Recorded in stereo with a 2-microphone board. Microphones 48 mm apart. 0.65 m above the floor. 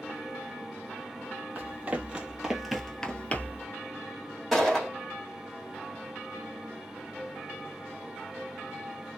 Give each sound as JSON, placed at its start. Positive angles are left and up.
{"t": 1.6, "sound": "running footsteps", "side_deg": -35, "distance_m": 1.4}
{"t": 4.5, "sound": "a gunshot", "side_deg": 0, "distance_m": 1.6}